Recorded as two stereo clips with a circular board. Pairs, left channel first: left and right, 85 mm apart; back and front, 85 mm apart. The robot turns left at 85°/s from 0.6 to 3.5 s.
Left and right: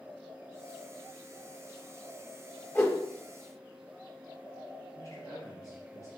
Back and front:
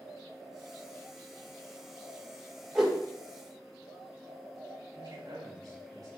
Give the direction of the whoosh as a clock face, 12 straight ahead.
9 o'clock.